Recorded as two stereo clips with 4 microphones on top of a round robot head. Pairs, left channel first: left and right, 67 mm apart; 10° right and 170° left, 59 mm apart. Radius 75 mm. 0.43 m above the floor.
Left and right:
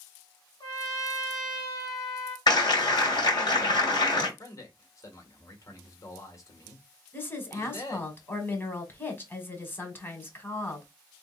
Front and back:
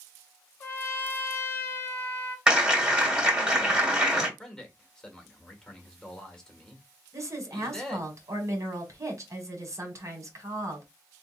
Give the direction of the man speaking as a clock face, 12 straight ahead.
10 o'clock.